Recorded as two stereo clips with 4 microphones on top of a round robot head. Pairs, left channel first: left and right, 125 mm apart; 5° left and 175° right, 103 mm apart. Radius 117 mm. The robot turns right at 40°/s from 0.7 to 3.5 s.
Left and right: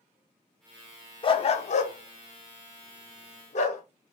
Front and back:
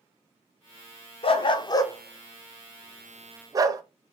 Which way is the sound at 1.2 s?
40° left.